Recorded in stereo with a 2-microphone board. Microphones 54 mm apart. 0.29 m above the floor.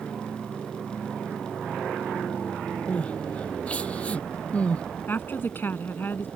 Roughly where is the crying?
Left.